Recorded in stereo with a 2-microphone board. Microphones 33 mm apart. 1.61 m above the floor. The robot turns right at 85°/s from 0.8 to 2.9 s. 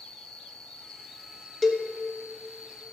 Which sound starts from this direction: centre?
A cowbell, at 1.6 s.